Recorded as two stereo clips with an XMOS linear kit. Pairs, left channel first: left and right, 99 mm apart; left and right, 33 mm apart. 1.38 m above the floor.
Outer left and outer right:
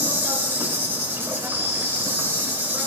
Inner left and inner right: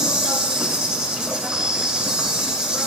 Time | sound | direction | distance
0.0 | an insect | 20° right (ahead or behind) | 2.5 m